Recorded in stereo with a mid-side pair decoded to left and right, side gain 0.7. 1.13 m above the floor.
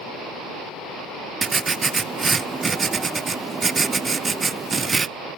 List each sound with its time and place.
1.4 s writing: 20° right, 0.5 m